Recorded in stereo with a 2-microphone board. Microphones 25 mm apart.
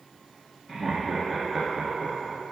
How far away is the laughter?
About 1.7 m.